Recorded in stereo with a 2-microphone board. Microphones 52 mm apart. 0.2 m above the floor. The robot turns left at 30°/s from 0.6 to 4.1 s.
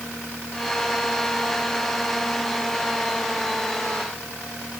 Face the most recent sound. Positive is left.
No sound to turn to.